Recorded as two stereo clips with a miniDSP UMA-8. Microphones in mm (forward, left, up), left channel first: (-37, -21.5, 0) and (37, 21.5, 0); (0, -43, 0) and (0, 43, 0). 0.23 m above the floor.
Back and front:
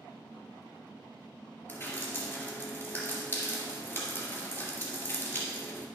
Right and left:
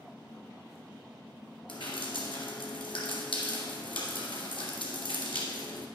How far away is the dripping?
About 2 m.